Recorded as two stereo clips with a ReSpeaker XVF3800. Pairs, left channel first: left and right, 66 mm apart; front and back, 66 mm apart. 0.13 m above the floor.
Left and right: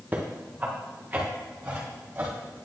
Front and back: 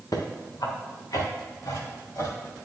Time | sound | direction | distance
0.1 | footsteps | 25° right | 1.8 m